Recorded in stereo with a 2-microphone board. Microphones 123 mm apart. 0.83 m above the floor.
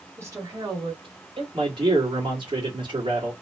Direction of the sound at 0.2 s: 20° right (ahead or behind).